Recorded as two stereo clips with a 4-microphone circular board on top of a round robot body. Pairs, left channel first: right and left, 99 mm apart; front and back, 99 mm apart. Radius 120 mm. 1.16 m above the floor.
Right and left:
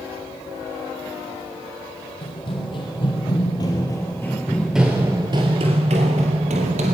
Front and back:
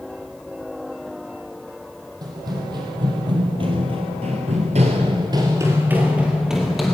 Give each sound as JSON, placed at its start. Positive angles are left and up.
{"t": 2.2, "sound": "running footsteps", "azimuth_deg": -125, "distance_m": 2.5}